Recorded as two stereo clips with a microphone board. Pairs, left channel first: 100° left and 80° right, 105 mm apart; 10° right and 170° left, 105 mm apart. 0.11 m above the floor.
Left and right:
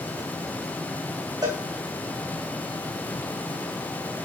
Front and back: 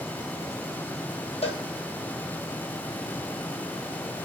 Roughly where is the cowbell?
Ahead right.